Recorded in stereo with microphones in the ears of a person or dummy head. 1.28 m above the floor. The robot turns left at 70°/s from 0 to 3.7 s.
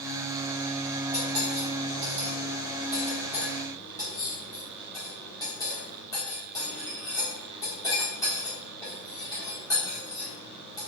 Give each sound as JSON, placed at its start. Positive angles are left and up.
{"t": 1.1, "sound": "cutlery clinking", "side_deg": -20, "distance_m": 1.7}